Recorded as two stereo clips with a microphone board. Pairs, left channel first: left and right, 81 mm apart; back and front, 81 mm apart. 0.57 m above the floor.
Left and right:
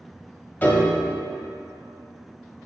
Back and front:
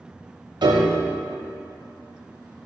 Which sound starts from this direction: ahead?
A piano, at 0.6 s.